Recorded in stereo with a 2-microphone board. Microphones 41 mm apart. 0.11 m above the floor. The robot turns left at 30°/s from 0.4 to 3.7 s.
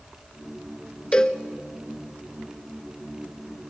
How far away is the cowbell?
About 0.8 m.